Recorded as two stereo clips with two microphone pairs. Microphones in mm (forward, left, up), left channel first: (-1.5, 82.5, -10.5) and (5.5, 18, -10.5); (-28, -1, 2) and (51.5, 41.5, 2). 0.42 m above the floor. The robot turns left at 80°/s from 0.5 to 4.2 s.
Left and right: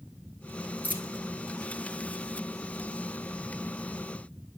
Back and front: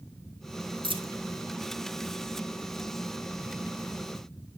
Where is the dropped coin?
45° left, 1.2 m; by 1.1 s 20° left, 1.2 m.